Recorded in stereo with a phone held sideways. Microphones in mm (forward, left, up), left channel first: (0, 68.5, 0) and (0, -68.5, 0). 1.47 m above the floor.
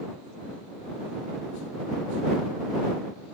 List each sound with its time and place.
Only background noise.